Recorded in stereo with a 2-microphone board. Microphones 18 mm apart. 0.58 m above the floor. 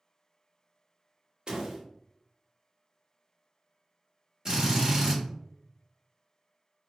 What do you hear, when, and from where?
1.5 s a door slam: 50° right (ahead or behind), 0.7 m
4.5 s a drill: 35° right (ahead or behind), 1.4 m